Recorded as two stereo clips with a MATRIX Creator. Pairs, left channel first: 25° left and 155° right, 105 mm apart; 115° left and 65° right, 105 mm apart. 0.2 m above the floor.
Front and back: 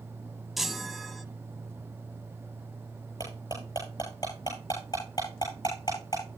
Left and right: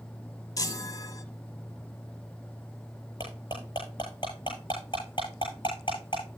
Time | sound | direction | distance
0.6 | a chime | 115° left | 0.6 m
3.2 | cutlery clinking | 75° left | 8.5 m